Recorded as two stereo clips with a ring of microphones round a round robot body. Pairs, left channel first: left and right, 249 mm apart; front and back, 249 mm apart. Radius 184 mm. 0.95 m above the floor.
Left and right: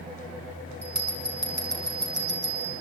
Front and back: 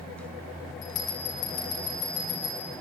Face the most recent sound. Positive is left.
turn(degrees=-40)